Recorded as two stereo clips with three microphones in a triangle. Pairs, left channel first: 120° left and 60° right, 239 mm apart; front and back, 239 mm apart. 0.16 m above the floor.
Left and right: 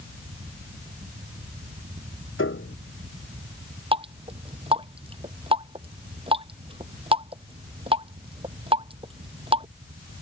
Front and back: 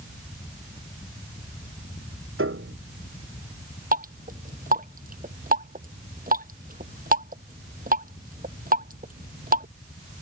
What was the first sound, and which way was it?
A piano, 150° left.